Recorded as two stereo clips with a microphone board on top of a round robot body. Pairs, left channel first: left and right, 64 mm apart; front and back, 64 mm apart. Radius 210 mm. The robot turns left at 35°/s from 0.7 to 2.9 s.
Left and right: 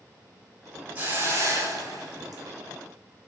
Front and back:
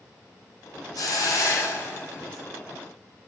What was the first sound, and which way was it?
A hiss, 30° right.